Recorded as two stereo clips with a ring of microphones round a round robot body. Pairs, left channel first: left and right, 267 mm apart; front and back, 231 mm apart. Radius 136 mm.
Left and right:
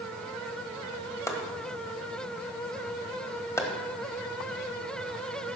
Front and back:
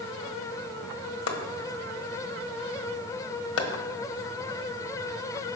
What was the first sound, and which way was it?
Chopping, 10° left.